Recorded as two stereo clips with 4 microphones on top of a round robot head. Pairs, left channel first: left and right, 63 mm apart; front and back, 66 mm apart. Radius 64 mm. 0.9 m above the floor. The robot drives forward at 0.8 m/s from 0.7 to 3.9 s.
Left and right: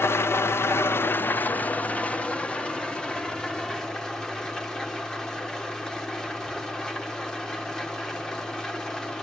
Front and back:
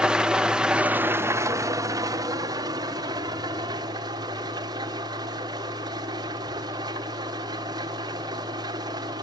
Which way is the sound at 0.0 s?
105° left.